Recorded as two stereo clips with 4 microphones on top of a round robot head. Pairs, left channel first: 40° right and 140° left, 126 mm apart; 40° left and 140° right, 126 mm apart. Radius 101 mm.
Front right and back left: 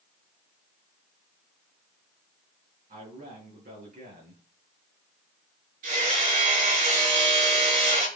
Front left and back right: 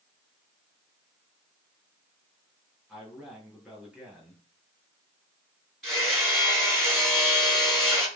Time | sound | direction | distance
2.9 | a man speaking | 135° left | 6 m
5.8 | hammering | 125° left | 7.5 m